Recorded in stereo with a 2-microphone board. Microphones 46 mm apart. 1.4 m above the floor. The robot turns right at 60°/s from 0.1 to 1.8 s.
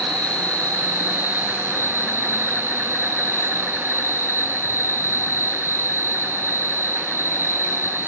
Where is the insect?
15° left, 6 m; by 8.1 s 115° left, 6 m.